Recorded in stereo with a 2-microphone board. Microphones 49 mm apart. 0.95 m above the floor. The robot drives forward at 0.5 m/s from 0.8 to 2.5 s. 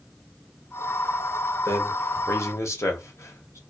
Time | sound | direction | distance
1.6 | a man speaking | 60° left (ahead or behind) | 0.8 m